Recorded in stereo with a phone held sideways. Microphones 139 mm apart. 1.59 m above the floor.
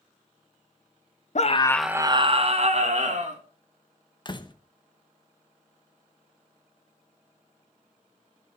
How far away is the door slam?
About 0.9 m.